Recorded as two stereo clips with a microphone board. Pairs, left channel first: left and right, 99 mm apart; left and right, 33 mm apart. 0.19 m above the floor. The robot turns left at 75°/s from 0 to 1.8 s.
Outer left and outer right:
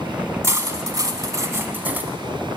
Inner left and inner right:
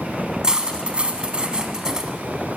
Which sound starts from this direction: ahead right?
Cutlery clinking, at 0.4 s.